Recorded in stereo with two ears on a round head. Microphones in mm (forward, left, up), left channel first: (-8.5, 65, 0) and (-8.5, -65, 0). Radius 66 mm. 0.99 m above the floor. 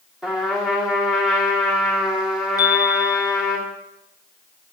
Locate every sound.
0.2 s a trumpet: 5° right (ahead or behind), 2.5 m
2.6 s a chime: 25° left (ahead or behind), 1.2 m